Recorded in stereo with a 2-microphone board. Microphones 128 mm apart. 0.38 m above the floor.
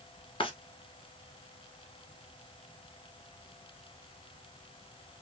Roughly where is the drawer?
Left.